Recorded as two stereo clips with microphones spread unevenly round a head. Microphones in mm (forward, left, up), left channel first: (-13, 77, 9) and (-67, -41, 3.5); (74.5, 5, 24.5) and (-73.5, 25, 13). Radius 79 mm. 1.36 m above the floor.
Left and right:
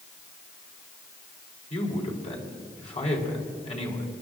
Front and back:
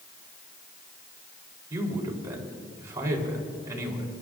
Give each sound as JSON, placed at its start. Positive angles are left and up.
{"t": 1.7, "sound": "a man speaking", "azimuth_deg": 105, "distance_m": 4.0}